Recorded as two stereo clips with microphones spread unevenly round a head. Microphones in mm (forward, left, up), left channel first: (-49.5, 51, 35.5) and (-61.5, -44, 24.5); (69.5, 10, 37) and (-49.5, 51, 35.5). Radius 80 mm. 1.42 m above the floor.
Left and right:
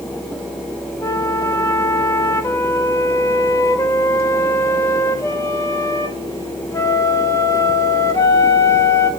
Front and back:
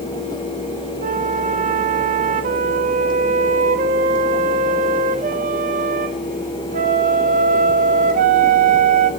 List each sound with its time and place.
1.0 s a flute: 140° left, 1.8 m